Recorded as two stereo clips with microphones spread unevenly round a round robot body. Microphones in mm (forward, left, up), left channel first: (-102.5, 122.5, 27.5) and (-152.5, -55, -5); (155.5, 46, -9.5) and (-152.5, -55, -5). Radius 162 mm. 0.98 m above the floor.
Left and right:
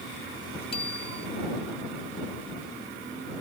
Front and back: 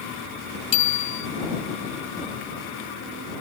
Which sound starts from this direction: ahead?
A bicycle bell, at 0.7 s.